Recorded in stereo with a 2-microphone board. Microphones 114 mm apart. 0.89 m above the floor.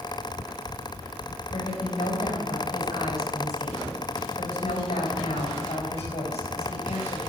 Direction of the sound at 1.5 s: 75° left (ahead or behind).